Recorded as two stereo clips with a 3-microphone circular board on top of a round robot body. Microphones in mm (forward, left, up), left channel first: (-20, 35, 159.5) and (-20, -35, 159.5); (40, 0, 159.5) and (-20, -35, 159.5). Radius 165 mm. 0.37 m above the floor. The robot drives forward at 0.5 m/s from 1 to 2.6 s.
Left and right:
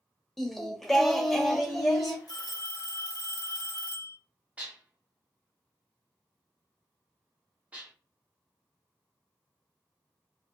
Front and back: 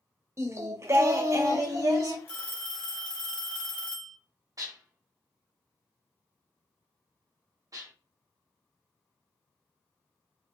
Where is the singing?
175° left, 0.6 m; by 2.2 s straight behind, 1.1 m.